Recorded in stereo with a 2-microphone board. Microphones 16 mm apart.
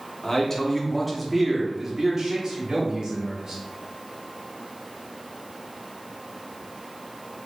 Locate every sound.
0.2 s a man speaking: 30° left (ahead or behind), 1.0 m; by 3.6 s 55° right (ahead or behind), 1.7 m